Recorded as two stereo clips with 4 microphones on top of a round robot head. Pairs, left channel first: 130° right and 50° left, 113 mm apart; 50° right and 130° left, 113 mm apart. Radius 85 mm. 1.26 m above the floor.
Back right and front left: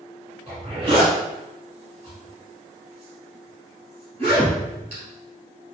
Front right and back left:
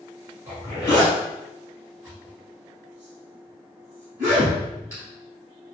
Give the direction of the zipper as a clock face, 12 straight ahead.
10 o'clock.